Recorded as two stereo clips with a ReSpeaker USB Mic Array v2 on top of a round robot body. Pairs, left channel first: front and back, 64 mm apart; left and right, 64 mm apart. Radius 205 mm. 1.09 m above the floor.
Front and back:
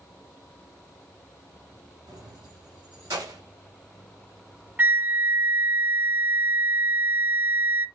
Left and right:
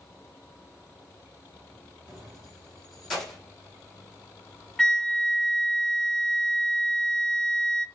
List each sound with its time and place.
2.1 s keys jangling: 170° right, 5.5 m; by 3.4 s 175° left, 5.5 m
4.8 s a flute: 160° left, 0.6 m